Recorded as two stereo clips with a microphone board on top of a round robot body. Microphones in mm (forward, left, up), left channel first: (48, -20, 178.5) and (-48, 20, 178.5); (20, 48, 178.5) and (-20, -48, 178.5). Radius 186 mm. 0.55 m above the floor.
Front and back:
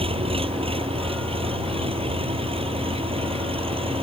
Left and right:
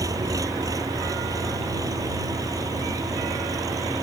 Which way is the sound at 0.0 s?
170° right.